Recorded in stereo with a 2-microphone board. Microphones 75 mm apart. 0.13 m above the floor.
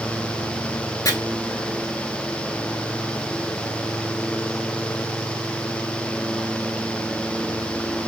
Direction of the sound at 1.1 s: 50° left (ahead or behind).